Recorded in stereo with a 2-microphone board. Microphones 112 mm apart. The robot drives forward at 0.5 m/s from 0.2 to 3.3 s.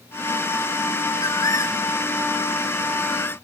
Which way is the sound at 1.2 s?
40° left (ahead or behind).